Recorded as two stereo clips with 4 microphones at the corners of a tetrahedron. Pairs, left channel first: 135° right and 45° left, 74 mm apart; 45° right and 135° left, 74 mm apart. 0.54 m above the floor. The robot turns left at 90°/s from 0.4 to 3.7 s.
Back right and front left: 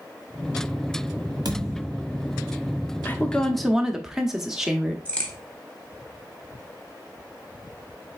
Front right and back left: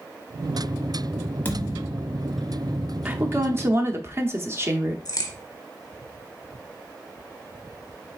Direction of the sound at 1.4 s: 20° left.